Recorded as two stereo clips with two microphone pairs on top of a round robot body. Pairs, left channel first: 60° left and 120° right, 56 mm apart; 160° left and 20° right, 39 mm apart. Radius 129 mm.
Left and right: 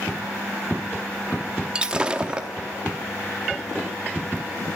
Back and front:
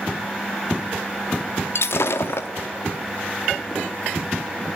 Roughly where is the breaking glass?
Behind.